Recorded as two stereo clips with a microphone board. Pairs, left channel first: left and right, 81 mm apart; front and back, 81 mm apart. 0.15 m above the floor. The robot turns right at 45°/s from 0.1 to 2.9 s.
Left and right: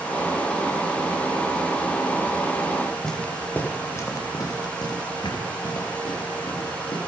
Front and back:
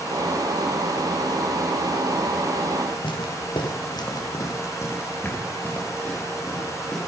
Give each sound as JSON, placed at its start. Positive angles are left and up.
{"t": 3.0, "sound": "footsteps", "azimuth_deg": 5, "distance_m": 2.5}